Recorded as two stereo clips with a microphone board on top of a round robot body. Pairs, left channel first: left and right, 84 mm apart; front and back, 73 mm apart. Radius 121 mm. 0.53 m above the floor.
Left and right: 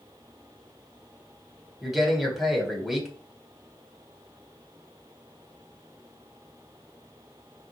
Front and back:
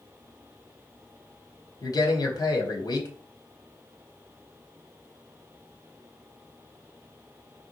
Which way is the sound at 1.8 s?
5° right.